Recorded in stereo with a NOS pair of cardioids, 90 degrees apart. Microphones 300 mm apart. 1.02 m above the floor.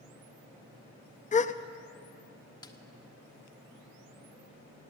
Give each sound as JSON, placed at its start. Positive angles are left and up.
{"t": 1.3, "sound": "a gasp", "azimuth_deg": 25, "distance_m": 0.6}
{"t": 2.6, "sound": "a snare drum", "azimuth_deg": 15, "distance_m": 1.3}